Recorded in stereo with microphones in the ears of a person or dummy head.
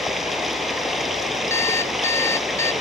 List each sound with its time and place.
0.0 s running water: centre (ahead or behind)
1.5 s an alarm clock: 15° left (ahead or behind)